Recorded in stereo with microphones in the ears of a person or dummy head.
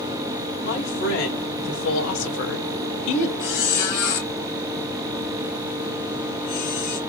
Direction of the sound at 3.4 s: 60° left (ahead or behind).